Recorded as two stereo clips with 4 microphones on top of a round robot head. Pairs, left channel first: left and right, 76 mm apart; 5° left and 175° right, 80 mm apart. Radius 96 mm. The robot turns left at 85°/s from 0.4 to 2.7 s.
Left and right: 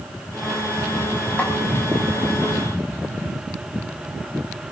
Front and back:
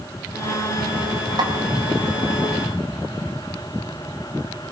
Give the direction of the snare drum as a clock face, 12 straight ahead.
7 o'clock.